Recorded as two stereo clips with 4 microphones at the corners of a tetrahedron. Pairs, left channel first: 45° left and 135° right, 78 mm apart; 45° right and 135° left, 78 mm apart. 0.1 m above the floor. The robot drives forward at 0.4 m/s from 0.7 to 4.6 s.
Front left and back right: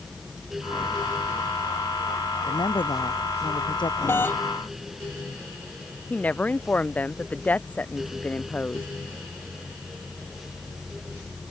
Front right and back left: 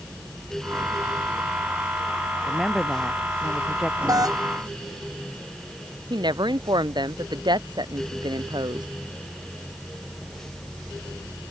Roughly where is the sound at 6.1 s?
Behind left.